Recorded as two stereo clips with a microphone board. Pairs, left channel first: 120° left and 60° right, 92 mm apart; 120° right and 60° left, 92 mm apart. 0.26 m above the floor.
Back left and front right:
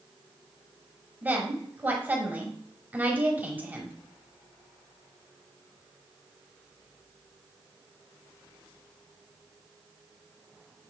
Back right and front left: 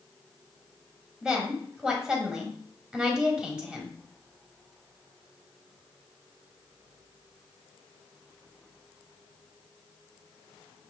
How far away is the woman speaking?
About 1.1 m.